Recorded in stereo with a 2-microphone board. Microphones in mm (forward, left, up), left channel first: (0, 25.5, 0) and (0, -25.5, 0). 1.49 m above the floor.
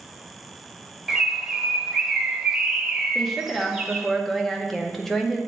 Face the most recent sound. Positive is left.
turn(degrees=5)  # may be behind; listen again after turning